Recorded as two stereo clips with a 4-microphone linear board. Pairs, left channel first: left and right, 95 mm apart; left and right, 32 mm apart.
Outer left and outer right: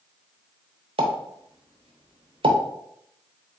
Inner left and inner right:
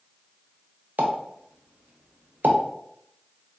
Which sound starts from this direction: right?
A pop, at 1.0 s.